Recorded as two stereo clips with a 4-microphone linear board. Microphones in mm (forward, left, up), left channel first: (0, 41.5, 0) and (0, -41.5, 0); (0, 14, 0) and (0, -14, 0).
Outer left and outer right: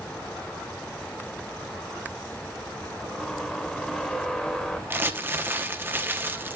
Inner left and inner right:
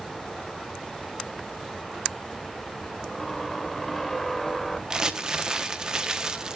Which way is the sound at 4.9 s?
25° right (ahead or behind).